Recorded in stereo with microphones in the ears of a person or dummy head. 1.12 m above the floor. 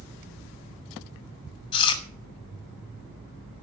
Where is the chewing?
25° left (ahead or behind), 2.5 m.